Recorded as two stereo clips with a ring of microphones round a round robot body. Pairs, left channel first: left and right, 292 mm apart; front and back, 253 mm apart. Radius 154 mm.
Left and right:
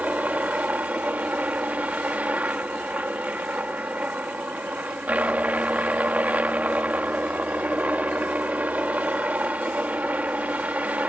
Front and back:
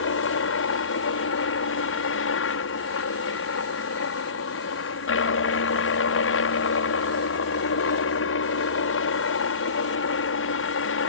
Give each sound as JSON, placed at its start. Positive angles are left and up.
{"t": 0.0, "sound": "a helicopter", "azimuth_deg": -5}